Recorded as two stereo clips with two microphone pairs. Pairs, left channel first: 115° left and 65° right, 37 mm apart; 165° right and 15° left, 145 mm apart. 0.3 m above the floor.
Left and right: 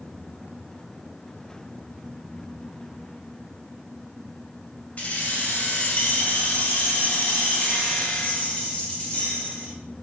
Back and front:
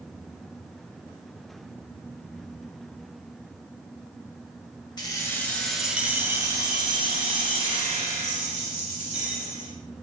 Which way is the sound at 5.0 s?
145° left.